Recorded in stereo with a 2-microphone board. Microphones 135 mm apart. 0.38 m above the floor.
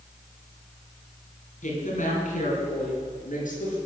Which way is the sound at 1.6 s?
70° left (ahead or behind).